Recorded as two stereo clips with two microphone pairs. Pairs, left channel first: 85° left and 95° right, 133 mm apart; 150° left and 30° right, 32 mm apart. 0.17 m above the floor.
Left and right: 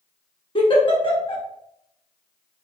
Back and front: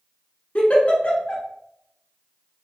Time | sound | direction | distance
0.6 | a giggle | 125° left | 1.0 m